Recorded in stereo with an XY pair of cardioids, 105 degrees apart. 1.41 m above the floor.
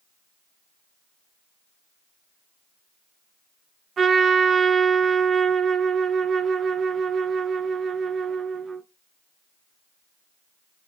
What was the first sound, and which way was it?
A trumpet, 45° right.